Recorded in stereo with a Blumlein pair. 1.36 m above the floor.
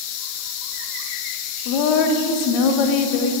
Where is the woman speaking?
40° left, 0.9 m.